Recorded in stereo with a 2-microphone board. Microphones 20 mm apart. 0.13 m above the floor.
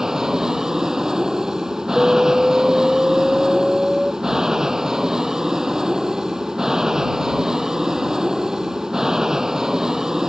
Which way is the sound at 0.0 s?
30° right (ahead or behind).